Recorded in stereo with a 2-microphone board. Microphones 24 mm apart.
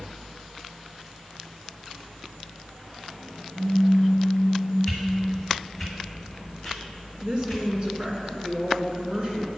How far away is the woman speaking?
About 1.9 m.